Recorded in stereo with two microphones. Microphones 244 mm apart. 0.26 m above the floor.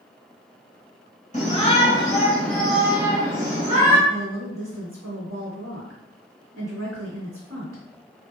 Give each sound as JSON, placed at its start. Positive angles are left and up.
{"t": 1.3, "sound": "a shout", "side_deg": 30, "distance_m": 1.5}
{"t": 4.1, "sound": "a woman speaking", "side_deg": -50, "distance_m": 1.8}